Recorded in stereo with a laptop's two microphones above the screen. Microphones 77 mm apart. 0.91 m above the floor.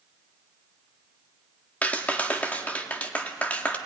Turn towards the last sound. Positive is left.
turn(degrees=20)  # may be behind; listen again after turning